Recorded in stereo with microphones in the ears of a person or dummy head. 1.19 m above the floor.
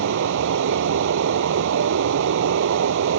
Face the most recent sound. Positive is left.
turn(degrees=-65)  # may be behind; listen again after turning